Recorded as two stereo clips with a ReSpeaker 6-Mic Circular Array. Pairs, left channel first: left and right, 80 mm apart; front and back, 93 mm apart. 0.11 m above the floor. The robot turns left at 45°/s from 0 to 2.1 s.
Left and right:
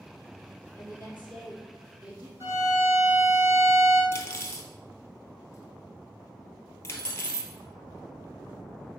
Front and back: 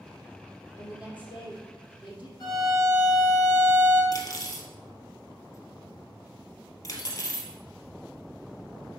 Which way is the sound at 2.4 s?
35° right.